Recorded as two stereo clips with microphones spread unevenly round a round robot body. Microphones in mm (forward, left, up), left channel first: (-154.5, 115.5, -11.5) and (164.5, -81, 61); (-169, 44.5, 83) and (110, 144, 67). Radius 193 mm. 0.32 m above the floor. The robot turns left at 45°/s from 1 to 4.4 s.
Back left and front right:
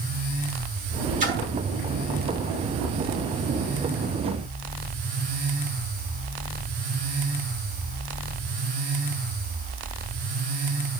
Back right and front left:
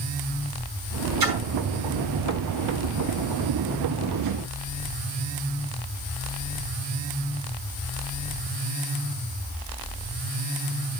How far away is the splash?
About 4 m.